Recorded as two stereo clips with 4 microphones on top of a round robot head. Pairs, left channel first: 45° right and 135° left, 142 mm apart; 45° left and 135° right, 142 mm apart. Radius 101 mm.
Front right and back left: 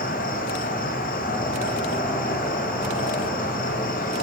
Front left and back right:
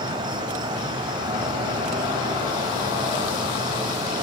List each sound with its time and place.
0.0 s an insect: 80° right, 1.9 m